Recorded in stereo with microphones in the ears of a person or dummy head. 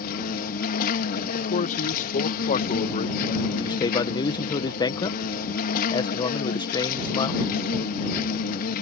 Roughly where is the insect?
Left.